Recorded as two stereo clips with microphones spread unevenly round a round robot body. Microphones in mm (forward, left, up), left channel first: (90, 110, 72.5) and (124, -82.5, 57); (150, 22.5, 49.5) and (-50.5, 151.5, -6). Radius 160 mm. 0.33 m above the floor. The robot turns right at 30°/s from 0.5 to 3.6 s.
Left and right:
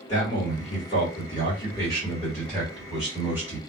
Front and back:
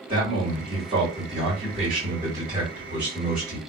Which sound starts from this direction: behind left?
A man speaking, at 0.1 s.